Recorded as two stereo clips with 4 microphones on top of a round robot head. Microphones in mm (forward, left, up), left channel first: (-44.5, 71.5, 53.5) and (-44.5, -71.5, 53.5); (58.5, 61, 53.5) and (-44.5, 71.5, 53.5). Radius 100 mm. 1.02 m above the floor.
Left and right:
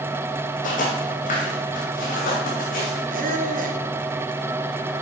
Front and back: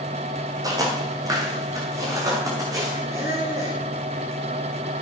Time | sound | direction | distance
0.6 | footsteps | 120° left | 3 m
3.1 | a squeak | 115° right | 1.8 m